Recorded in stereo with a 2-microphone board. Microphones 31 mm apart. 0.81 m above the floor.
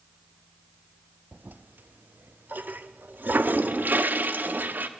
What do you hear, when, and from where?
1.3 s a toilet flushing: 75° right (ahead or behind), 0.6 m